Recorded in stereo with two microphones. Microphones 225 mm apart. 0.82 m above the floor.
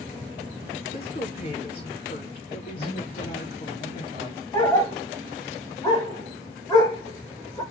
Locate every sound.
0.9 s a woman speaking: 45° left (ahead or behind), 3 m
2.8 s a man speaking: 35° left (ahead or behind), 3 m
4.5 s a dog barking: 20° left (ahead or behind), 1.7 m